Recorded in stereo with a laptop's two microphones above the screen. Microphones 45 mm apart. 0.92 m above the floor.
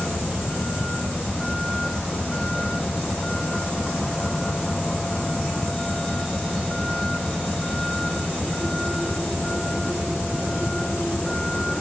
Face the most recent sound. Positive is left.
turn(degrees=10)  # may be behind; listen again after turning